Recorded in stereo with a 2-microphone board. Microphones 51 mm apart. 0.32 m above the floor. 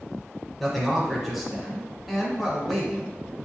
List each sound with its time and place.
0.6 s a man speaking: centre (ahead or behind), 1.1 m